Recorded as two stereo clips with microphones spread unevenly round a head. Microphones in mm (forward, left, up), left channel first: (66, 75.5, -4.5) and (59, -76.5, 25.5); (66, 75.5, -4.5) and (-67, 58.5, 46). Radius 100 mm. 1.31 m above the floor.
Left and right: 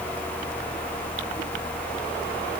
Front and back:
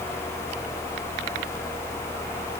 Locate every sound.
Only background noise.